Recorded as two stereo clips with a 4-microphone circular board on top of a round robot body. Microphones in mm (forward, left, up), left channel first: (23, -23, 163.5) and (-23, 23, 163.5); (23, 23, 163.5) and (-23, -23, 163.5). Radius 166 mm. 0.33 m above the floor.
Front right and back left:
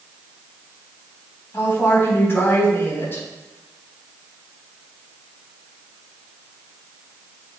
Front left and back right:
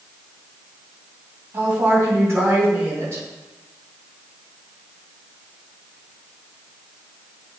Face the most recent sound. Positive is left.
turn(degrees=-95)